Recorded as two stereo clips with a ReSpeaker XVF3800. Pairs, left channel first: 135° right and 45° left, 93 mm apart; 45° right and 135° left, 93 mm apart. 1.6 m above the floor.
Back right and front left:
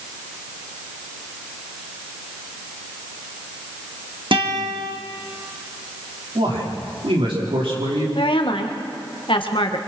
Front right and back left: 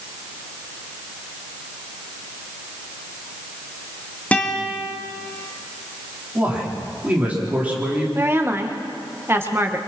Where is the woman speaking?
160° right, 1.7 m.